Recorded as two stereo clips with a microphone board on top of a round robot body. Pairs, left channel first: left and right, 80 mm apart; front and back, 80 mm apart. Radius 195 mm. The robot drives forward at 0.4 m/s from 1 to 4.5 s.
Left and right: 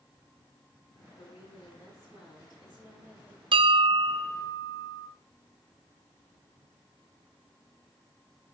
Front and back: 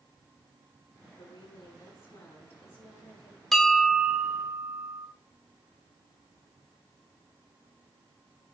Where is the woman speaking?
55° left, 7.5 m; by 3.4 s 60° left, 7 m.